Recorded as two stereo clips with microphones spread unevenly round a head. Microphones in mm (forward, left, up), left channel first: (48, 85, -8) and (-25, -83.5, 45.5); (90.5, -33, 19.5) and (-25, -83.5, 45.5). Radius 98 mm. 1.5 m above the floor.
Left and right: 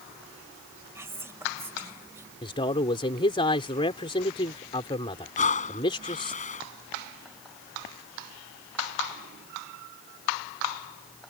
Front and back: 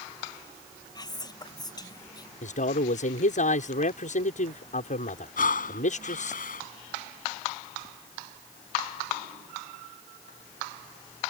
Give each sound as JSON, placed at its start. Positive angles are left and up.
{"t": 0.9, "sound": "whispering", "azimuth_deg": -35}
{"t": 2.4, "sound": "a man speaking", "azimuth_deg": 0}
{"t": 5.4, "sound": "breathing", "azimuth_deg": 15}